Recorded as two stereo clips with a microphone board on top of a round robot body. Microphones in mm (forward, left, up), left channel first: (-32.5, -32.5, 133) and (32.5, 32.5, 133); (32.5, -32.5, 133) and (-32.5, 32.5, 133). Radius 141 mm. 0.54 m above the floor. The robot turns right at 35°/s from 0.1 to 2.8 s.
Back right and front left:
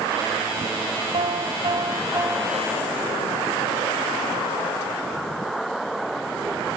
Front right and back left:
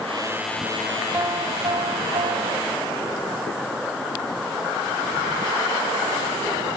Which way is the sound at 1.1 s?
70° left.